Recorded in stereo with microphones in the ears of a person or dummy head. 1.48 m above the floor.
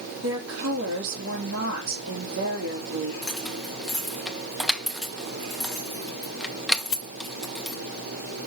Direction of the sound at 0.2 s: 80° right.